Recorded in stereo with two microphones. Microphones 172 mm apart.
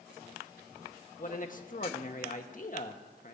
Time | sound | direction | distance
1.2 | a man speaking | 50° left (ahead or behind) | 1.3 m